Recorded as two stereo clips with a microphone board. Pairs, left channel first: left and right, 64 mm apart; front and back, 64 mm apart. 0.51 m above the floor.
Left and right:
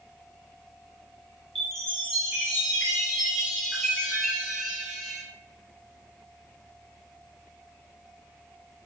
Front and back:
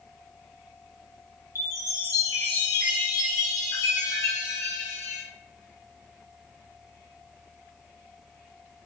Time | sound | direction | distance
1.6 | a chime | 5° left | 2 m